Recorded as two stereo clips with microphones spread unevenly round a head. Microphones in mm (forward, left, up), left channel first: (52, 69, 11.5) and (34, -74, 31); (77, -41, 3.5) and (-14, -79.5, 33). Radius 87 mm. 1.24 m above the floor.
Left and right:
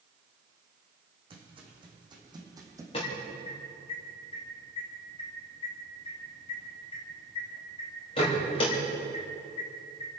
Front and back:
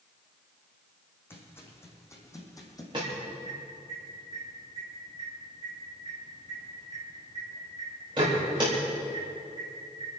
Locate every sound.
1.3 s footsteps: 50° right, 5 m; by 2.8 s 35° right, 4 m
2.9 s an alarm: 140° left, 3.5 m